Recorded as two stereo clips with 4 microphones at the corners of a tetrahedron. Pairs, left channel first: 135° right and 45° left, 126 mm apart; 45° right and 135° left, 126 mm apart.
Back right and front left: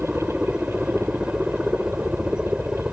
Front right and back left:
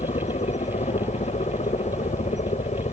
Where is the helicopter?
40° right.